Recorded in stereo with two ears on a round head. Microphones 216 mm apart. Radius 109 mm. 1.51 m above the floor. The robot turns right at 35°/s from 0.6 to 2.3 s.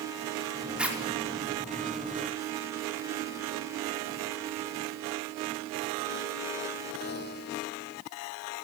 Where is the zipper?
5° right (ahead or behind), 5 m; by 1.0 s 10° right (ahead or behind), 5 m.